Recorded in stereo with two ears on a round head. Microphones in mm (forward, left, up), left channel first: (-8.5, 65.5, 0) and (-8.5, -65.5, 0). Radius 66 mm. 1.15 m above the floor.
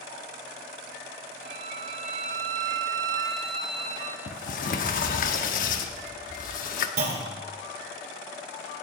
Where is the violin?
50° right (ahead or behind), 2.5 m.